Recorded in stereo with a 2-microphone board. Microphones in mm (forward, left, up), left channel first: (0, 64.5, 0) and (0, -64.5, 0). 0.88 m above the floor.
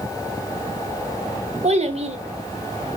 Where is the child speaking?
50° right (ahead or behind), 1.1 m.